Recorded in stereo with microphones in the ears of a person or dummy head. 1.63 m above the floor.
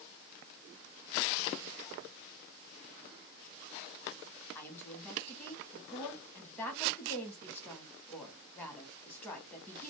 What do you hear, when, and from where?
4.5 s a woman speaking: 10° left (ahead or behind), 0.9 m